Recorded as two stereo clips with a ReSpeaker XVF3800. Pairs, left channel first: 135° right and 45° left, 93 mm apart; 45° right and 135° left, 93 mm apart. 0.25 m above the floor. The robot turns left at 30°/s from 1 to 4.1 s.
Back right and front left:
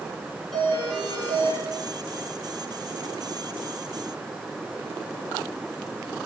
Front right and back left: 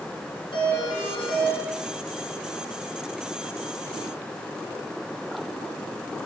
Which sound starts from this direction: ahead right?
A doorbell, at 0.5 s.